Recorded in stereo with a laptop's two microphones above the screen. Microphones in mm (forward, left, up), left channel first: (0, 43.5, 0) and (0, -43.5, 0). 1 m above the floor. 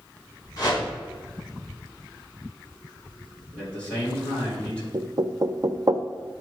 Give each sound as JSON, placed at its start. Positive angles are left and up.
{"t": 0.6, "sound": "a whoosh", "side_deg": 40, "distance_m": 3.0}
{"t": 3.5, "sound": "a man speaking", "side_deg": 15, "distance_m": 3.5}
{"t": 4.9, "sound": "knocking", "side_deg": -40, "distance_m": 0.5}